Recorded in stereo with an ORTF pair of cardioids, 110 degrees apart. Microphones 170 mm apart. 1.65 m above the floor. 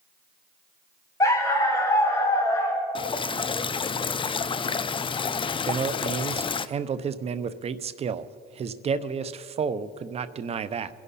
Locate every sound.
1.2 s a dog barking: 20° left, 3.5 m
3.0 s dripping: 30° left, 0.6 m
5.7 s a man speaking: 40° right, 0.8 m